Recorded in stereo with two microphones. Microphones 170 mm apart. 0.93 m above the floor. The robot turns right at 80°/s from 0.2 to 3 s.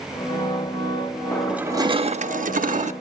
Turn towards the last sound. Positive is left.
turn(degrees=-55)